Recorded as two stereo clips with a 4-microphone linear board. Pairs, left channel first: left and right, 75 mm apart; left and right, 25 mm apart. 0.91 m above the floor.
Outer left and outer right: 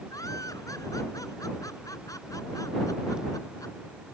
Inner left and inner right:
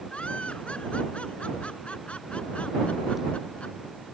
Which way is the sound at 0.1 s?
50° left (ahead or behind).